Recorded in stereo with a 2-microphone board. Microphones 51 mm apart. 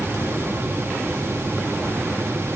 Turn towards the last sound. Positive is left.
No sound to turn to.